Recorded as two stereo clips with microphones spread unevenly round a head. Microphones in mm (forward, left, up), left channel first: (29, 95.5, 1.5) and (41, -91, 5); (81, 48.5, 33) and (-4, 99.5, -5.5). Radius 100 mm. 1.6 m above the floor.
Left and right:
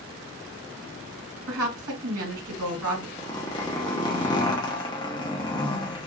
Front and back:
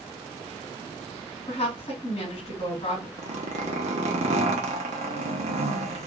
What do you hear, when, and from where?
1.5 s a woman speaking: 90° right, 2.5 m
3.2 s a zipper: 160° left, 0.8 m